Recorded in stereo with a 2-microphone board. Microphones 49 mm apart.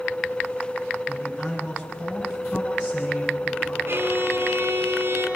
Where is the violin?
65° right (ahead or behind), 4.5 m.